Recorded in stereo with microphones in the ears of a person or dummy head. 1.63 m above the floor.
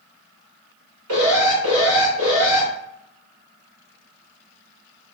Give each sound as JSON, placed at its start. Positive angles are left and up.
{"t": 1.1, "sound": "an alarm", "side_deg": -75, "distance_m": 1.3}